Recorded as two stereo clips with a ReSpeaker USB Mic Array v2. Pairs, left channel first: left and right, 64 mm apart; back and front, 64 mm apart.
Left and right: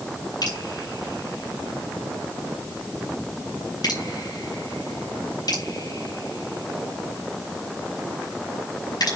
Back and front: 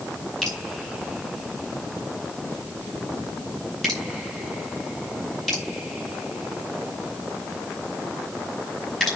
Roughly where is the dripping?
Left.